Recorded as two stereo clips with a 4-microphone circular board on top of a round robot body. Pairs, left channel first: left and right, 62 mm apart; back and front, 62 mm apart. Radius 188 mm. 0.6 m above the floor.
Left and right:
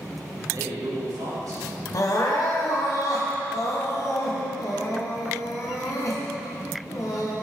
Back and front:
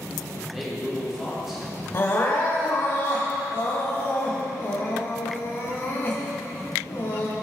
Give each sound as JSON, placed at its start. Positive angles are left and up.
{"t": 0.4, "sound": "a man speaking", "azimuth_deg": -85, "distance_m": 2.5}
{"t": 1.9, "sound": "crying", "azimuth_deg": 125, "distance_m": 1.6}